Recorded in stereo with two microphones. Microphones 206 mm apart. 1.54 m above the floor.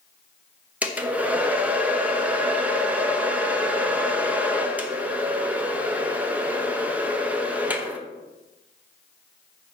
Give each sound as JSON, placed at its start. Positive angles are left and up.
{"t": 0.8, "sound": "a hair dryer", "side_deg": -5, "distance_m": 1.0}